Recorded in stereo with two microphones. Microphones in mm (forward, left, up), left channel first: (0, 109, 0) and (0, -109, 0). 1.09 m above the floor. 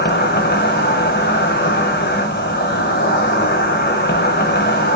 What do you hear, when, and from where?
0.0 s an insect: 50° left (ahead or behind), 1.9 m